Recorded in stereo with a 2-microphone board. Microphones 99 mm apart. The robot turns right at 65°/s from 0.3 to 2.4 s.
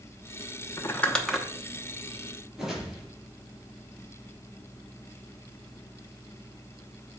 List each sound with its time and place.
0.8 s crumpling: 30° left (ahead or behind), 0.9 m; by 1.5 s 10° right (ahead or behind), 0.9 m
2.6 s a whoosh: 5° right (ahead or behind), 3 m